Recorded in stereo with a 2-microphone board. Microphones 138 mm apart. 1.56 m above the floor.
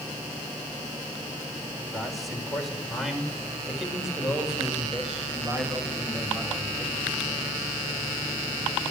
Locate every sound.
1.9 s a man speaking: centre (ahead or behind), 6.5 m; by 7.7 s 10° right (ahead or behind), 10 m